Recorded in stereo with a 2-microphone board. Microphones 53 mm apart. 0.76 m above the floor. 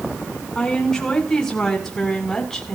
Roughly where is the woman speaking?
Centre.